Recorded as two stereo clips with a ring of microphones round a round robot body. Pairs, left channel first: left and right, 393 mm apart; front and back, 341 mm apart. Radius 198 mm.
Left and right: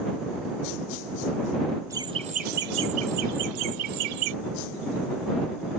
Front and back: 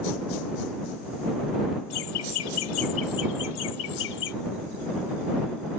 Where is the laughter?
10° right; by 4.3 s 65° right.